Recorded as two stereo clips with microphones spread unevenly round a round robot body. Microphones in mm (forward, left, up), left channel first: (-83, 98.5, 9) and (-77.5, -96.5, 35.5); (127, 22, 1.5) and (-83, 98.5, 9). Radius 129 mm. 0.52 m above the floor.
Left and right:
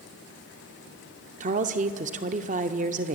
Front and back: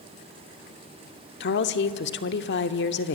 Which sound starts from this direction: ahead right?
A woman speaking, at 1.4 s.